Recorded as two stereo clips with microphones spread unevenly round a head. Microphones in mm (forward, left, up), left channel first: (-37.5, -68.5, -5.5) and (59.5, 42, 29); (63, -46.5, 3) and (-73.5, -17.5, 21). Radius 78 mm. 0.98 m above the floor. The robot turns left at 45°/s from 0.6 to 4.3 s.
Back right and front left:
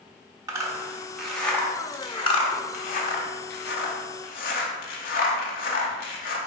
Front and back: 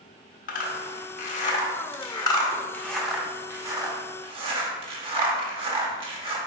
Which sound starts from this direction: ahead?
A zipper, at 0.5 s.